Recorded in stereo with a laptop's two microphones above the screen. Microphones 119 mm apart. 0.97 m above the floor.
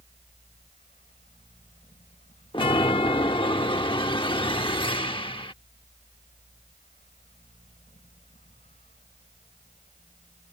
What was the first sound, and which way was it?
A fan, 80° left.